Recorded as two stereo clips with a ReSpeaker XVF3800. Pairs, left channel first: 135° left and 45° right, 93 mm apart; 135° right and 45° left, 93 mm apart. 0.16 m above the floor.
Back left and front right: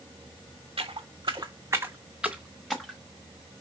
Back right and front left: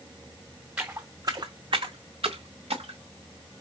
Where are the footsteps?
25° right, 0.8 m; by 3.0 s 55° left, 1.1 m.